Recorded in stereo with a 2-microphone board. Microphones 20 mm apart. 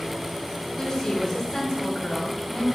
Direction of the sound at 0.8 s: 25° left (ahead or behind).